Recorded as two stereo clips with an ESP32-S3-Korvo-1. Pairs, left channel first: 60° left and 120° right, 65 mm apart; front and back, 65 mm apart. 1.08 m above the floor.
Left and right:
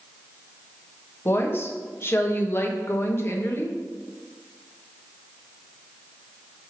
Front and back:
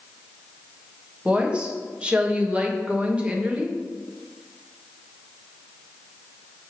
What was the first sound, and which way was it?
A woman speaking, 110° left.